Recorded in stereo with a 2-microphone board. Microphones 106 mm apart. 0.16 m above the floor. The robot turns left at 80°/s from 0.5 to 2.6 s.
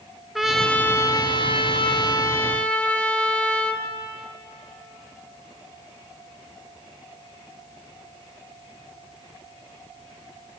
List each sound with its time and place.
0.3 s a trumpet: straight behind, 2 m; by 3.9 s 10° left, 2 m